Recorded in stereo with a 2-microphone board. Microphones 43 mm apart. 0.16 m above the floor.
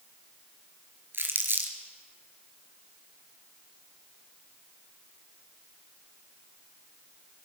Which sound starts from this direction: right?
Crumpling, at 1.1 s.